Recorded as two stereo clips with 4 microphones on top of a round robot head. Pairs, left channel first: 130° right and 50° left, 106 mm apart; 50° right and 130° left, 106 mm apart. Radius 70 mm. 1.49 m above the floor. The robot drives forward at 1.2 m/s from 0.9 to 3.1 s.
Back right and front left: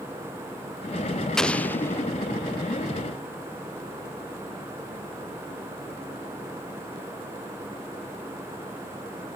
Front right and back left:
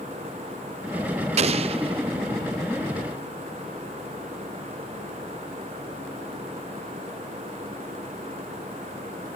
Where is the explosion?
145° left; by 2.1 s 165° left.